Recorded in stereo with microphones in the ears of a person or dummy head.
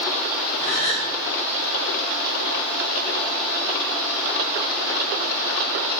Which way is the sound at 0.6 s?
75° left (ahead or behind).